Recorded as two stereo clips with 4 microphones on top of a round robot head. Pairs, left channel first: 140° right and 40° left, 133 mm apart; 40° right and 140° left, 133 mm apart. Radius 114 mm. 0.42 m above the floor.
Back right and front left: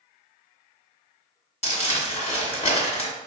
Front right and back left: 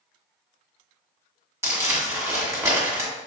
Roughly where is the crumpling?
Behind.